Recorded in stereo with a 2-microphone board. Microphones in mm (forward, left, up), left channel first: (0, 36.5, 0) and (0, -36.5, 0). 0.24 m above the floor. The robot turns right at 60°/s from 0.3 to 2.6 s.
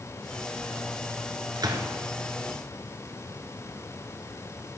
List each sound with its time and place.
1.6 s a gunshot: 75° right (ahead or behind), 1.1 m; by 1.9 s 70° right (ahead or behind), 1.1 m